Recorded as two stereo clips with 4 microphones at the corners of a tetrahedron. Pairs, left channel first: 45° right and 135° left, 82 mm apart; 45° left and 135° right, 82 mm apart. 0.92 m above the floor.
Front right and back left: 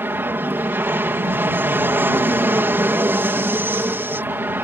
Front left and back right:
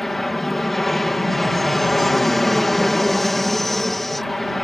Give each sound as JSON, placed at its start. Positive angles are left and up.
{"t": 0.0, "sound": "an aircraft", "azimuth_deg": 130}